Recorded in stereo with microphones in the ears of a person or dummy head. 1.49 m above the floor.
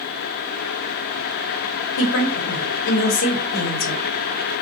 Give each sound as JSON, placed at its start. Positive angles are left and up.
{"t": 2.0, "sound": "a woman speaking", "side_deg": 85, "distance_m": 0.9}